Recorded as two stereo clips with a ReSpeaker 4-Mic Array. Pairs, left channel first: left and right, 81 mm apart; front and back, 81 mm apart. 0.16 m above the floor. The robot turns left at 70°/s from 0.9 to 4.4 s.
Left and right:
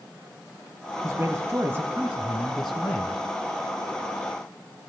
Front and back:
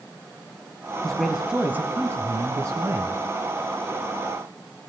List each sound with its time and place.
1.0 s a man speaking: 80° right, 1.3 m; by 3.2 s 130° left, 1.3 m